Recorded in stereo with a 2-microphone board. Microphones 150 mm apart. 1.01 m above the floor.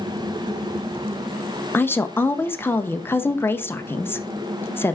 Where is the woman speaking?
15° left (ahead or behind), 0.5 m.